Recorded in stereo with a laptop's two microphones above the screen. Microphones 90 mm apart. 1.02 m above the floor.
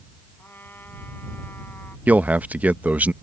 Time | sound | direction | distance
0.4 | a trumpet | 25° left (ahead or behind) | ?
2.1 | a man speaking | 15° right (ahead or behind) | ?